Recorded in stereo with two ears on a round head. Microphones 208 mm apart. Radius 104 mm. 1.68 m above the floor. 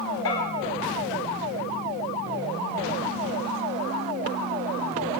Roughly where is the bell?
Left.